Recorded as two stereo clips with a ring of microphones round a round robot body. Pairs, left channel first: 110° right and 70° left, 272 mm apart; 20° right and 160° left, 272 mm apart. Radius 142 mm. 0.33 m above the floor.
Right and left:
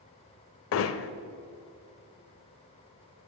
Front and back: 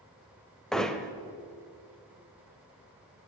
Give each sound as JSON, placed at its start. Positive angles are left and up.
{"t": 0.7, "sound": "hammering", "azimuth_deg": -110, "distance_m": 0.8}